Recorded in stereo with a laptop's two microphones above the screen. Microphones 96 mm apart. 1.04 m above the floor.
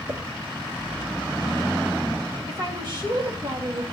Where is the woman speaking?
50° right (ahead or behind), 1.5 m.